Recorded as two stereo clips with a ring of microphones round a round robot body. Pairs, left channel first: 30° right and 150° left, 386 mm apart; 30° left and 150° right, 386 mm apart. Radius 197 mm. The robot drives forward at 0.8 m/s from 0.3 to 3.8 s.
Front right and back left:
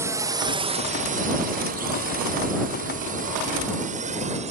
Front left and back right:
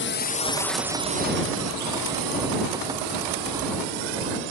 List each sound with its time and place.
0.0 s a drone: 70° left; by 4.5 s 135° right